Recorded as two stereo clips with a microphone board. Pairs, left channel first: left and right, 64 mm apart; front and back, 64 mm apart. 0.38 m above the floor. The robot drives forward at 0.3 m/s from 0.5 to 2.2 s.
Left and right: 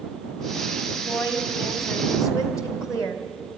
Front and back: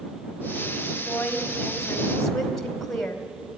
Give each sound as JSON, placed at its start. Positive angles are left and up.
{"t": 0.9, "sound": "a woman speaking", "azimuth_deg": 70, "distance_m": 2.5}